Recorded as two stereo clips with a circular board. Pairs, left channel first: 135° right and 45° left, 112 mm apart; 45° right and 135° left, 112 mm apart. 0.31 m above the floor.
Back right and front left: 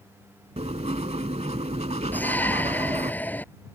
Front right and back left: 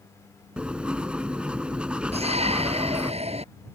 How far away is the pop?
No pop in this recording.